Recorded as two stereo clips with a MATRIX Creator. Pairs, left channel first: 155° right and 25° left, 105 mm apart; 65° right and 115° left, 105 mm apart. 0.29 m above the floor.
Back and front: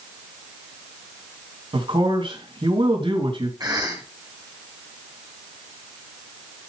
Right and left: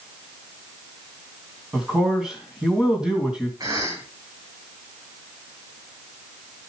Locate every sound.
1.7 s a man speaking: 30° left, 2.5 m
3.6 s a cough: 65° left, 3 m